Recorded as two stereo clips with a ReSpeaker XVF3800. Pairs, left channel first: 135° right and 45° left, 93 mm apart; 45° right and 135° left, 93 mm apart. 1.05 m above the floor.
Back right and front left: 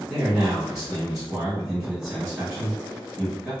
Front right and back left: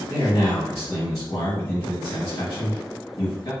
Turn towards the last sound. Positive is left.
turn(degrees=-30)